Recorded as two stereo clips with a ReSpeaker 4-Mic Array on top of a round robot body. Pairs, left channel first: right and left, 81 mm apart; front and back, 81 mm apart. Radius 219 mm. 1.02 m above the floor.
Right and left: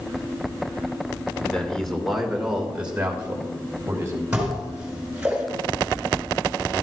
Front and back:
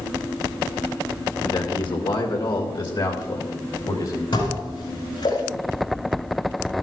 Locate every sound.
1.4 s a man speaking: 15° right, 1.9 m; by 4.2 s 30° left, 3 m
4.3 s dishes clattering: 10° left, 4.5 m